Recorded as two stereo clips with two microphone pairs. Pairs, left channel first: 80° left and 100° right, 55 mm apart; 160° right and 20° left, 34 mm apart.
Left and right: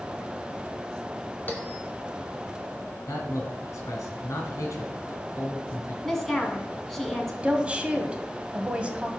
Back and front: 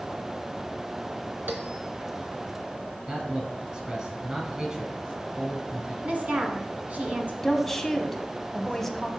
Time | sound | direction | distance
1.5 | a bell | 25° left | 2 m
3.1 | a man speaking | 80° left | 3 m
6.0 | a woman speaking | straight ahead | 1.9 m
7.4 | a woman speaking | 90° right | 1.0 m